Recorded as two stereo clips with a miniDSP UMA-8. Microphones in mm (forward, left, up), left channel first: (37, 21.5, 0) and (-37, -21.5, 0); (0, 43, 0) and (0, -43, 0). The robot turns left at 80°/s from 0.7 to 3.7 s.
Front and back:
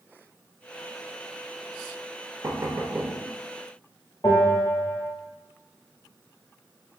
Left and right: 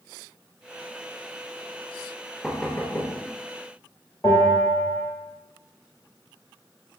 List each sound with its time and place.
2.4 s knocking: straight behind, 0.6 m; by 3.1 s 125° left, 0.6 m
4.2 s a bell: 45° left, 1.5 m